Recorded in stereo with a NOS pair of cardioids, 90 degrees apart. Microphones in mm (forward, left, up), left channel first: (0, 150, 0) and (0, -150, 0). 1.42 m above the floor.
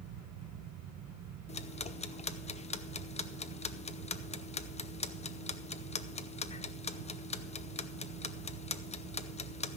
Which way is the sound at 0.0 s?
70° right.